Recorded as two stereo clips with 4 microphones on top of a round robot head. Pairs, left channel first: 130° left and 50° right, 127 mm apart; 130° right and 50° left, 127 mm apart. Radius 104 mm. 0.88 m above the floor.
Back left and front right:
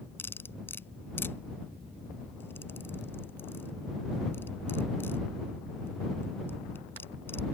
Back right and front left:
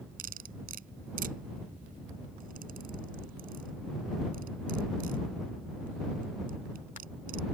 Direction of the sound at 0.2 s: 55° left.